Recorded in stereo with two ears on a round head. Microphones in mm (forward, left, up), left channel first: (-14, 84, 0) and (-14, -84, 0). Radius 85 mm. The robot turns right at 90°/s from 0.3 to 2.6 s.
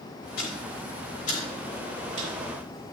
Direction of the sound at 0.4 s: 55° left (ahead or behind).